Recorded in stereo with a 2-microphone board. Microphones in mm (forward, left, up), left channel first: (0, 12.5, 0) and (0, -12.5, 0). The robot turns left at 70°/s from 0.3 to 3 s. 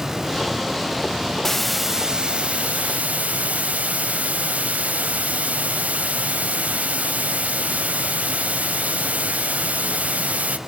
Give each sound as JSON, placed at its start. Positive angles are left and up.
{"t": 1.4, "sound": "a hiss", "azimuth_deg": 20, "distance_m": 0.9}